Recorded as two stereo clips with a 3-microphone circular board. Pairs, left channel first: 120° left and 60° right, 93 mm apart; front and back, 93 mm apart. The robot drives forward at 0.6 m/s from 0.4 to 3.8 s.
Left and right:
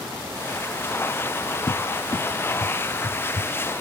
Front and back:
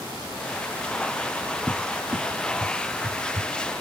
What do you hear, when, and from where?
1.7 s a cupboard door: 120° left; by 3.5 s 165° left